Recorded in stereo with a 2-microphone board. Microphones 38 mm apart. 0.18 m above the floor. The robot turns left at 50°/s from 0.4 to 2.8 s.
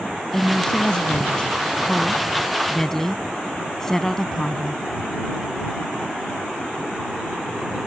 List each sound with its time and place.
0.3 s a woman speaking: 145° left; by 4.8 s 25° left